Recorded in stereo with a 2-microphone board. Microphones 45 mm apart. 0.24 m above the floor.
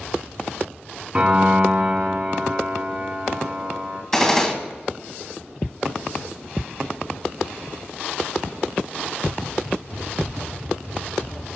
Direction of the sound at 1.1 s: 30° right (ahead or behind).